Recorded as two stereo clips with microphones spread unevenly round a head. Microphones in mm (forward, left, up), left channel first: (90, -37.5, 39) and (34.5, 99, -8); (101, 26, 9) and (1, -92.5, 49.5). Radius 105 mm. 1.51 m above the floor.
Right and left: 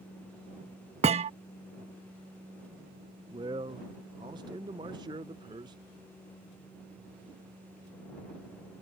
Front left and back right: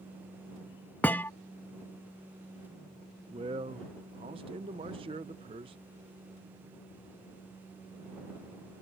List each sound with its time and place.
1.0 s a thud: 155° left
3.3 s a man speaking: 170° right